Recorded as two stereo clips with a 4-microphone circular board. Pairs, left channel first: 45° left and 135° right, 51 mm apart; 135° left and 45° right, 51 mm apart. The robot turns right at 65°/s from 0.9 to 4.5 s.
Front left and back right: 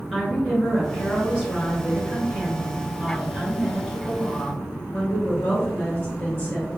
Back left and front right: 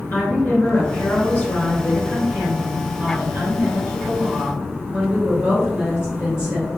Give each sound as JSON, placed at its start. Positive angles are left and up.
{"t": 0.1, "sound": "a woman speaking", "azimuth_deg": 140, "distance_m": 1.6}